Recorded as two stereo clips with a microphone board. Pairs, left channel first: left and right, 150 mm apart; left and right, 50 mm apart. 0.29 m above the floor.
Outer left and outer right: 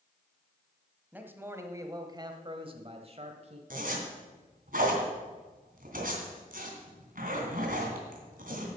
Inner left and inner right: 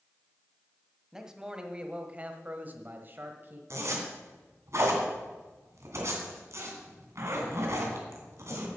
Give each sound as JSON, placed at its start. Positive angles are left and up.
{"t": 1.1, "sound": "a man speaking", "side_deg": -10, "distance_m": 1.5}
{"t": 3.7, "sound": "a zipper", "side_deg": -60, "distance_m": 2.5}